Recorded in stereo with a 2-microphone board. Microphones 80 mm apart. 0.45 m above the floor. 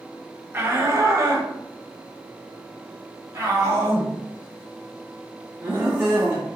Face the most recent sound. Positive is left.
turn(degrees=-30)  # may be behind; listen again after turning